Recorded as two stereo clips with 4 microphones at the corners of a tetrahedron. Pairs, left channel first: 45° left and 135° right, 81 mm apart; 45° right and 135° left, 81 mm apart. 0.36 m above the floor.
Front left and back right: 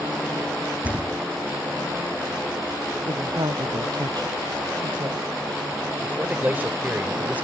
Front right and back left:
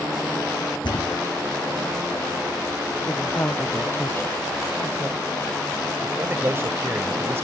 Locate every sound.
0.8 s a thud: 60° right
3.1 s a woman speaking: 105° right
6.0 s a man speaking: 170° left